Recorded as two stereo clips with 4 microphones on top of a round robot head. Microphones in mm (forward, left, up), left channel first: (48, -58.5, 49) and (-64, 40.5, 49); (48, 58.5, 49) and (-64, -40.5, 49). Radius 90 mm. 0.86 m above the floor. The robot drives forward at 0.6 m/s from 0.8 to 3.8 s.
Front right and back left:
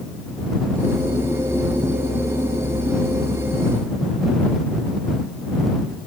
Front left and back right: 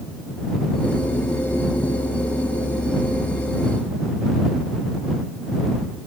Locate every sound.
Only background noise.